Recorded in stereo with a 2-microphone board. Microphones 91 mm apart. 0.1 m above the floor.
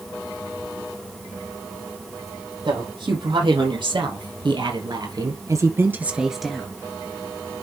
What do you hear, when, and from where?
2.6 s a woman speaking: 60° right (ahead or behind), 4 m; by 6.7 s 10° left (ahead or behind), 1.5 m